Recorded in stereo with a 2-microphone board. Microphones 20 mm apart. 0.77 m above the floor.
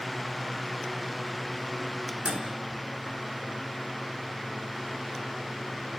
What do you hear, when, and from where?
2.2 s a microwave: 60° right (ahead or behind), 5.5 m